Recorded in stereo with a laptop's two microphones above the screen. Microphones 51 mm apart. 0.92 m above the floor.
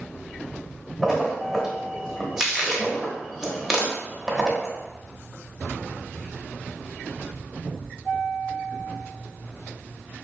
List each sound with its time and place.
1.0 s a splash: 10° right (ahead or behind), 0.9 m